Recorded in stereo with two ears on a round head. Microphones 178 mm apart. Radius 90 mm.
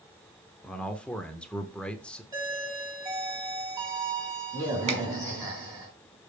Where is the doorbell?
20° right (ahead or behind), 3.5 m.